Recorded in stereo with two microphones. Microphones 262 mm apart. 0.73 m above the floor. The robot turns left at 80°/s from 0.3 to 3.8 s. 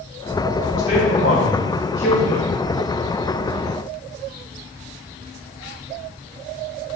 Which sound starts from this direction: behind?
A man speaking, at 0.8 s.